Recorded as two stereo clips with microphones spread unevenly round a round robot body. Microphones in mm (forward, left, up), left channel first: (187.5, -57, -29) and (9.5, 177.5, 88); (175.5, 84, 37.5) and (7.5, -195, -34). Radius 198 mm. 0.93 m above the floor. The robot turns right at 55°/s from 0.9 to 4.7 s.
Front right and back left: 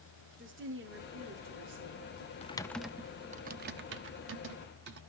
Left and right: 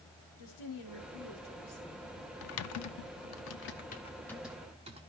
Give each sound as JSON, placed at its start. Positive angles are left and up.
{"t": 0.4, "sound": "a woman speaking", "azimuth_deg": 70, "distance_m": 2.5}
{"t": 2.4, "sound": "typing on a keyboard", "azimuth_deg": 30, "distance_m": 0.5}